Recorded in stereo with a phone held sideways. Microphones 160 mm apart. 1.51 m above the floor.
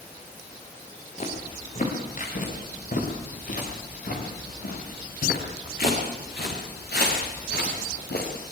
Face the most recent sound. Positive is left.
turn(degrees=80)